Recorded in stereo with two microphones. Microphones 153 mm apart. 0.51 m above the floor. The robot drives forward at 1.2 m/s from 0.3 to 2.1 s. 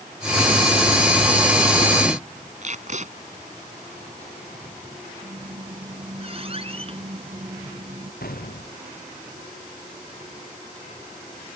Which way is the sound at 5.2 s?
40° right (ahead or behind).